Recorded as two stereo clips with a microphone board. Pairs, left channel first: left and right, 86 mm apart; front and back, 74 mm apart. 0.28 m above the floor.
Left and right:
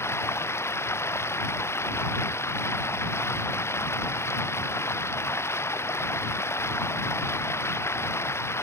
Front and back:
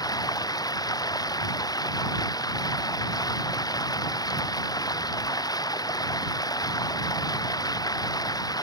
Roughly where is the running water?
Ahead left.